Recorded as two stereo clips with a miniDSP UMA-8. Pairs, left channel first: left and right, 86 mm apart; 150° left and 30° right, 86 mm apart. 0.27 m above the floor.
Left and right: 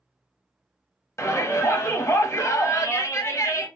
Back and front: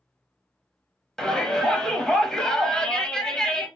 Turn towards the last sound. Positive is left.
turn(degrees=70)